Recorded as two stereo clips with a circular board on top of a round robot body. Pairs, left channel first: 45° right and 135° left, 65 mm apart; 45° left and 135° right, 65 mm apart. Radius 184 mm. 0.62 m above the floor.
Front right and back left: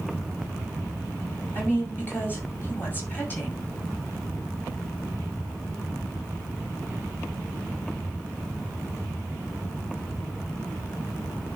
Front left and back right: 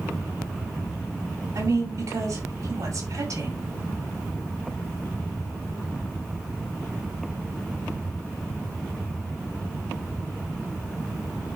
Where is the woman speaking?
105° right, 6 m.